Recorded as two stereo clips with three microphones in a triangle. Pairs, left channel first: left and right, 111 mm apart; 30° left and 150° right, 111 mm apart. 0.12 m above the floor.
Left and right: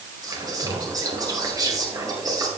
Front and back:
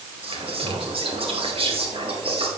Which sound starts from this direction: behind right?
Whispering, at 0.2 s.